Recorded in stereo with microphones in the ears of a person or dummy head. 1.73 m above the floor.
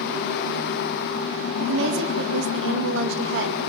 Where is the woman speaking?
70° right (ahead or behind), 2 m.